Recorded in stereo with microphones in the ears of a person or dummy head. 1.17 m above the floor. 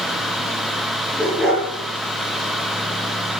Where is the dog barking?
5° right (ahead or behind), 8 m.